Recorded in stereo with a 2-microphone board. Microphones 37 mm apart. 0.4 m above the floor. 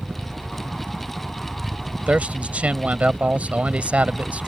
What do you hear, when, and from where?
0.0 s a helicopter: 20° right (ahead or behind)
2.1 s a man speaking: 45° right (ahead or behind)